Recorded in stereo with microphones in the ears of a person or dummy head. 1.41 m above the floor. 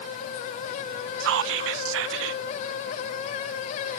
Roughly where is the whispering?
Right.